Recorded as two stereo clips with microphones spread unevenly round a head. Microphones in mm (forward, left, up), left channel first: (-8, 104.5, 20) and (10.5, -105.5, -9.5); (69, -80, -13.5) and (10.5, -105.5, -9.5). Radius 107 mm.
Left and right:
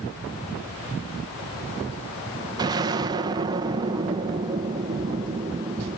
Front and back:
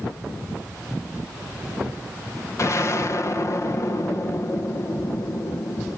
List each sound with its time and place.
2.6 s an explosion: 15° right, 1.3 m